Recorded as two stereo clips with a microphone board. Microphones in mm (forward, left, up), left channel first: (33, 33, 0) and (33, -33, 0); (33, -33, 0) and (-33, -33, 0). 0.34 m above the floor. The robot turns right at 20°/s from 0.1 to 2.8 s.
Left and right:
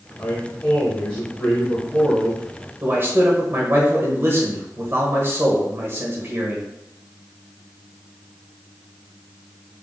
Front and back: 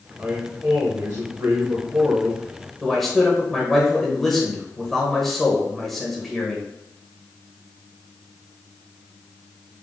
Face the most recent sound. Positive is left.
turn(degrees=-85)